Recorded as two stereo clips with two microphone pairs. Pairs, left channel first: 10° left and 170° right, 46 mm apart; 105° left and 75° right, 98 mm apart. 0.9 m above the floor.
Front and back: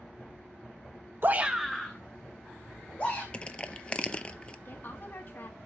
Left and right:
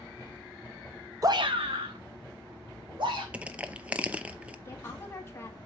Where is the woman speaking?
45° left, 1.9 m.